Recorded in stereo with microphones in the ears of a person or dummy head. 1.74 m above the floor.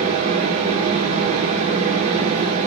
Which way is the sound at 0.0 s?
40° right (ahead or behind).